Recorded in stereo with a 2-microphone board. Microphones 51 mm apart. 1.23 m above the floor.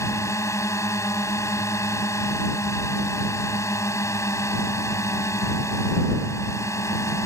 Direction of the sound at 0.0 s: 75° left (ahead or behind).